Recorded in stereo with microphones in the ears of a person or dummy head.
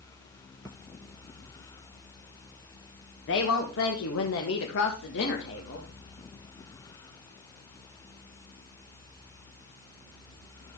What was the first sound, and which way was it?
A woman speaking, 60° left (ahead or behind).